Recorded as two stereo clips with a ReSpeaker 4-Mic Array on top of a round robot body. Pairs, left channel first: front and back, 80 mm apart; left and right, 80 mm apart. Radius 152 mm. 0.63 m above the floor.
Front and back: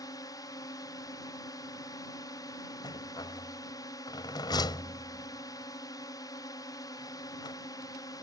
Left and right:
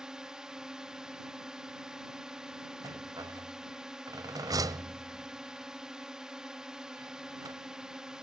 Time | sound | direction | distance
0.0 | a drone | 10° right | ?
2.8 | a rattle | 40° right | ?